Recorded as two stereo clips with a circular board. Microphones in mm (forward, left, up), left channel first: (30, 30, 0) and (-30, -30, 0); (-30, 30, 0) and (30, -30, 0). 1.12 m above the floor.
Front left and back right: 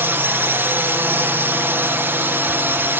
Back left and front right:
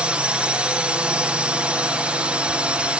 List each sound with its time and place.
0.0 s a drone: 110° right